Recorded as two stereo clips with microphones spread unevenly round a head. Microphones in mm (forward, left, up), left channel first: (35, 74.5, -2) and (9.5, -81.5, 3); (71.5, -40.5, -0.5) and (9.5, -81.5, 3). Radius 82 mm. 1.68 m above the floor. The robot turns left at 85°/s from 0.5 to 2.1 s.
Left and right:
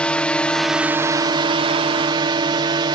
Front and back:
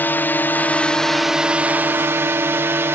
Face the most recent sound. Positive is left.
turn(degrees=-130)